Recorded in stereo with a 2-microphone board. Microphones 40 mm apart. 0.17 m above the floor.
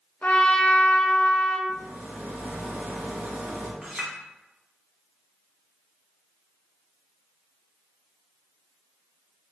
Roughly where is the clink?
Centre.